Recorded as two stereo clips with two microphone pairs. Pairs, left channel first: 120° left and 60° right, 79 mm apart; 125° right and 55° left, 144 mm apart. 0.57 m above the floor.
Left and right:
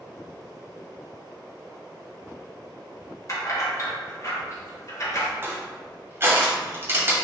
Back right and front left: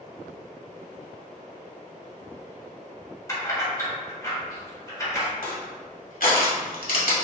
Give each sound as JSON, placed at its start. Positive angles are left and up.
{"t": 3.3, "sound": "keys jangling", "azimuth_deg": 165, "distance_m": 1.3}
{"t": 5.4, "sound": "crushing", "azimuth_deg": -115, "distance_m": 1.3}